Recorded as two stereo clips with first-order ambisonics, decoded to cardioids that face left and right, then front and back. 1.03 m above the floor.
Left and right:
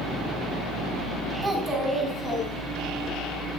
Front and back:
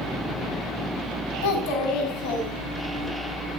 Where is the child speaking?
10° right, 5.5 m; by 3.1 s 5° right, 4.5 m.